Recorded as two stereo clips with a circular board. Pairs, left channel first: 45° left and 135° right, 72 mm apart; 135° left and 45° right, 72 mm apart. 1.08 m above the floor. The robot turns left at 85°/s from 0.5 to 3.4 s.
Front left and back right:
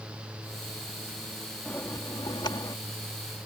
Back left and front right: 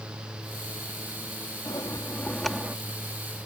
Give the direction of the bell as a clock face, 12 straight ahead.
8 o'clock.